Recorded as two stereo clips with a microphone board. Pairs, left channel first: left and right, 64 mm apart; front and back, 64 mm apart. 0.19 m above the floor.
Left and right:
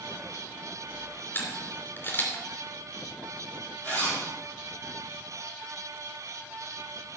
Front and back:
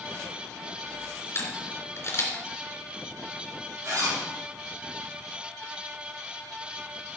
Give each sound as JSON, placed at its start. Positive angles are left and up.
{"t": 1.3, "sound": "a camera shutter", "azimuth_deg": 40, "distance_m": 3.0}
{"t": 3.8, "sound": "a zipper", "azimuth_deg": 150, "distance_m": 4.5}